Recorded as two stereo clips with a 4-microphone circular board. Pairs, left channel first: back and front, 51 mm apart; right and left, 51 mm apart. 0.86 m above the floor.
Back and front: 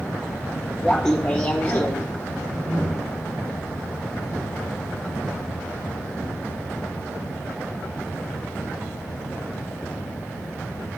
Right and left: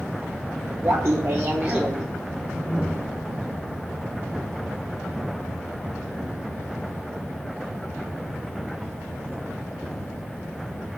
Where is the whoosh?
10° left, 2.5 m.